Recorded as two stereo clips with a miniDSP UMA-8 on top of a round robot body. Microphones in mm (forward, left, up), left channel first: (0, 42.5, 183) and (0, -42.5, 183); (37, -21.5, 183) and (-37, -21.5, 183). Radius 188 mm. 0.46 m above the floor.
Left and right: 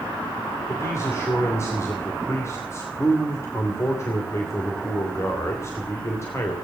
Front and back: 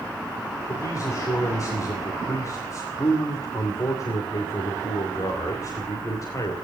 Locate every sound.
0.7 s a man speaking: 35° left, 3 m